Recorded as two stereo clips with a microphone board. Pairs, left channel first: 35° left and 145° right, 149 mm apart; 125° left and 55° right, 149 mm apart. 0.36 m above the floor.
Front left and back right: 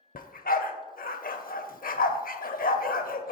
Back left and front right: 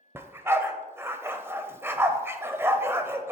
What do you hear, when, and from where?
0.1 s a dog barking: 20° left, 0.5 m